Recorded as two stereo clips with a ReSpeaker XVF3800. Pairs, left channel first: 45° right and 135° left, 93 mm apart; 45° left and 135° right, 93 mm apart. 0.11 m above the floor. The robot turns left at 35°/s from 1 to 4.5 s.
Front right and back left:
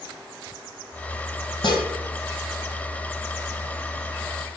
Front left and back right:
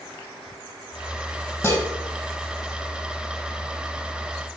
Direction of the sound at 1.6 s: 20° right.